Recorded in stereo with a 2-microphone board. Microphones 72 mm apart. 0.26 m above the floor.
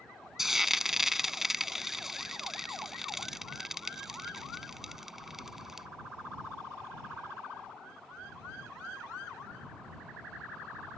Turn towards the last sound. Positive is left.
turn(degrees=-5)  # may be behind; listen again after turning